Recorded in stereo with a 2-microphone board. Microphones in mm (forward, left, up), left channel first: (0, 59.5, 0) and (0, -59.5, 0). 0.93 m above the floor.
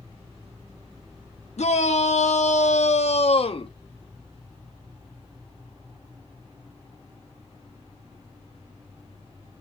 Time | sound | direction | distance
1.6 | a shout | 70° left (ahead or behind) | 1.3 m